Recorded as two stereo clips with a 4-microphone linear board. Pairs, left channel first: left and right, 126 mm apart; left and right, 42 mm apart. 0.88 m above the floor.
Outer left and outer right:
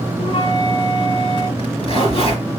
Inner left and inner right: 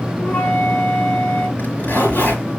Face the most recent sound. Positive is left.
turn(degrees=50)  # may be behind; listen again after turning